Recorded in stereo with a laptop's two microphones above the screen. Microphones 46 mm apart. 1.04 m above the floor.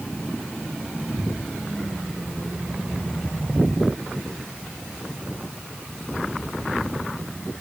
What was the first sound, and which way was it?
Only background noise.